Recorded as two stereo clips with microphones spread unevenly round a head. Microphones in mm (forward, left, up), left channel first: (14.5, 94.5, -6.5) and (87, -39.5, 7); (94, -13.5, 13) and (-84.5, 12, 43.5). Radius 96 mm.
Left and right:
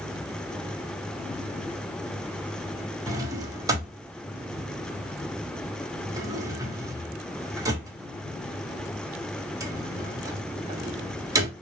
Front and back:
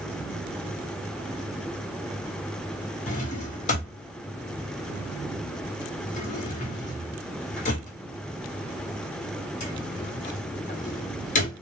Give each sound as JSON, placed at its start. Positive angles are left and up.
{"t": 3.1, "sound": "a drawer", "azimuth_deg": -35, "distance_m": 1.2}